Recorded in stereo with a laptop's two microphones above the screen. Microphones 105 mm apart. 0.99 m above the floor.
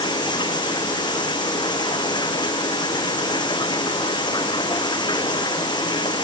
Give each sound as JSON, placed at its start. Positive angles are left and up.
{"t": 0.0, "sound": "running water", "side_deg": 45}